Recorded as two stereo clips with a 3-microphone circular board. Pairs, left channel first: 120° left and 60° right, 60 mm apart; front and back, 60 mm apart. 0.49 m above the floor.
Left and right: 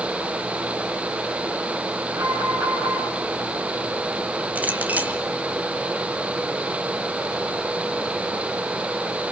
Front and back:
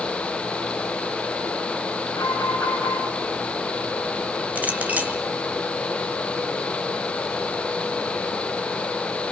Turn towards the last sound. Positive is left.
turn(degrees=-120)